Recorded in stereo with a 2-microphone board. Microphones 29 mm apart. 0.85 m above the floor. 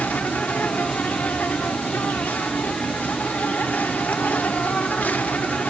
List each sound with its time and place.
0.0 s an insect: 80° left, 0.8 m